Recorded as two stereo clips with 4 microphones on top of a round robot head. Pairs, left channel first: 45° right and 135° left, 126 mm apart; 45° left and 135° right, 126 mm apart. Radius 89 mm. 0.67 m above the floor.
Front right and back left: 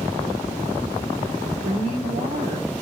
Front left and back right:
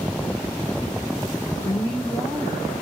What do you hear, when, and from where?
1.6 s a woman speaking: 125° left, 2 m